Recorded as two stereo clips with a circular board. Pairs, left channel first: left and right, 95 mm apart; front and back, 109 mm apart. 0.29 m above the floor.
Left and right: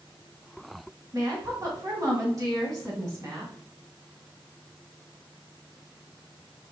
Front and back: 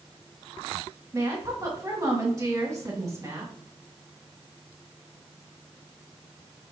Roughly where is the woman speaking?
Behind right.